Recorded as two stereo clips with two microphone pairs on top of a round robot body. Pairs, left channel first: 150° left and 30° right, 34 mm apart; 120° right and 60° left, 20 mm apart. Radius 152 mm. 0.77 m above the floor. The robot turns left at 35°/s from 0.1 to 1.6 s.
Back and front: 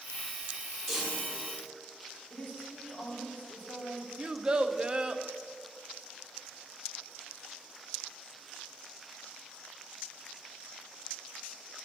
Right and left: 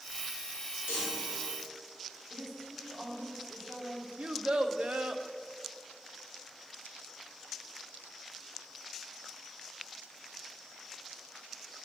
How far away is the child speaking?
About 0.7 m.